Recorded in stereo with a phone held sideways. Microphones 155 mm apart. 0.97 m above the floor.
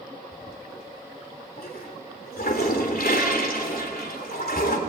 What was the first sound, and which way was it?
A toilet flushing, 80° left.